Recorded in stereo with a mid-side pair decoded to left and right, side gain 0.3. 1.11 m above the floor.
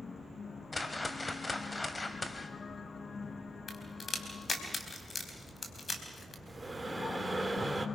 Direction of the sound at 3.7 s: 55° left.